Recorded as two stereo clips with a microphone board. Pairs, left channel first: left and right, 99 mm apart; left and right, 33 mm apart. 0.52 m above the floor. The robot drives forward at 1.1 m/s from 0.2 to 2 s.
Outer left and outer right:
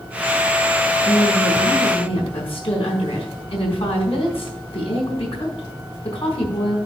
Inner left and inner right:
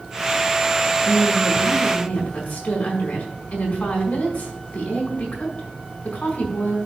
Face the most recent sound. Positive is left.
turn(degrees=65)  # may be behind; listen again after turning